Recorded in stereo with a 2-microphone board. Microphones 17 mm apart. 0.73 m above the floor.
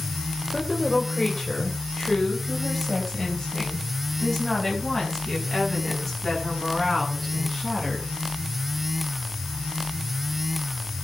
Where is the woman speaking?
25° left (ahead or behind), 3 m.